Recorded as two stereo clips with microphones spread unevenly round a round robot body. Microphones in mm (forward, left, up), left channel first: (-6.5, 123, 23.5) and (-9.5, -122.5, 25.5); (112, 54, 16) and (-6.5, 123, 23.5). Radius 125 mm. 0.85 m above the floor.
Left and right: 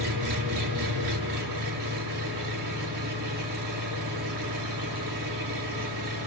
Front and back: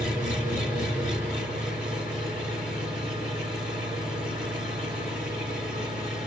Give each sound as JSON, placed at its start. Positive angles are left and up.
{"t": 0.0, "sound": "an engine running", "azimuth_deg": -90, "distance_m": 6.0}